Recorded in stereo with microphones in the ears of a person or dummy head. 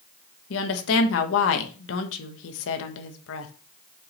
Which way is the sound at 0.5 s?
75° left (ahead or behind).